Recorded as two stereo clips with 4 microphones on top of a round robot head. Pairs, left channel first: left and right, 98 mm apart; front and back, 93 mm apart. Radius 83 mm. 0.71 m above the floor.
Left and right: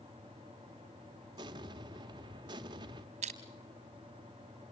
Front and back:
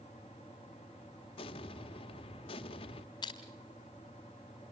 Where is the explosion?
35° right, 1.1 m.